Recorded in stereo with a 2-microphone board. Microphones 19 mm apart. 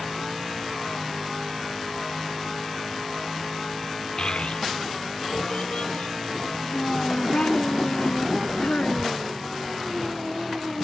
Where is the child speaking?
45° left (ahead or behind); by 9.4 s 75° left (ahead or behind).